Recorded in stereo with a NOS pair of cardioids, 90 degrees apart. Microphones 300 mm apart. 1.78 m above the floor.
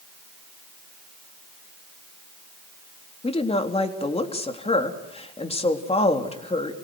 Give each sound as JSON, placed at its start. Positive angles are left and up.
{"t": 3.2, "sound": "a woman speaking", "azimuth_deg": 20, "distance_m": 3.5}